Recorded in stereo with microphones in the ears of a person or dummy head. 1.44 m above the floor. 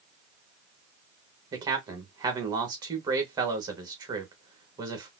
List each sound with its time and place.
1.5 s a man speaking: 20° right (ahead or behind), 1.1 m